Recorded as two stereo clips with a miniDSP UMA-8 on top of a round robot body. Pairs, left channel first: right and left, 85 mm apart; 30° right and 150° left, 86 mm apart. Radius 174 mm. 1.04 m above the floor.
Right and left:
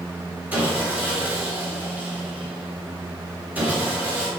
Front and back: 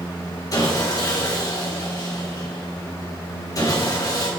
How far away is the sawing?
About 2.5 m.